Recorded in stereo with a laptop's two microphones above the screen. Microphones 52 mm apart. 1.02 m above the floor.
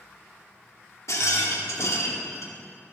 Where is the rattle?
70° left (ahead or behind), 1.1 m.